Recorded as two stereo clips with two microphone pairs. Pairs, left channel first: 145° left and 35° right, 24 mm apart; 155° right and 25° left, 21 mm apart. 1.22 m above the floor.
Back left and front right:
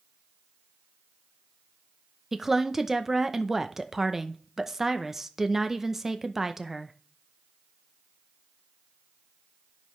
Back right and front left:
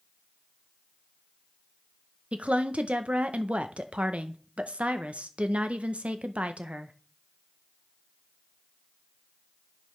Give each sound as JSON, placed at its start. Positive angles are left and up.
{"t": 2.3, "sound": "a woman speaking", "azimuth_deg": 40, "distance_m": 0.7}